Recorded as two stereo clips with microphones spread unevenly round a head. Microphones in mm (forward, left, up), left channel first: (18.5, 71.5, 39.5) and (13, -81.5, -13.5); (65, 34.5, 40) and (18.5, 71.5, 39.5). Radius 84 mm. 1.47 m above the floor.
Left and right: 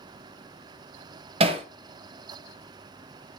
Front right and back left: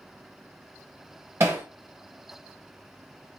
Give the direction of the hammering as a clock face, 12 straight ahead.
5 o'clock.